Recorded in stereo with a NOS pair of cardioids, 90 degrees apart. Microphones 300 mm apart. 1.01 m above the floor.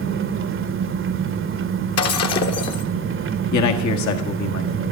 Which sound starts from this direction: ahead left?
Breaking glass, at 2.0 s.